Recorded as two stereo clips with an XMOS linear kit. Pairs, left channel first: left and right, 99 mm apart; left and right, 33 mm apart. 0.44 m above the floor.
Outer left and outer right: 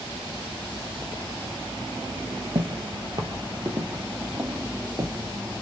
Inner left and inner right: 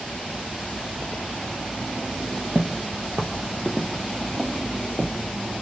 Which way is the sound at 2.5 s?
60° right (ahead or behind).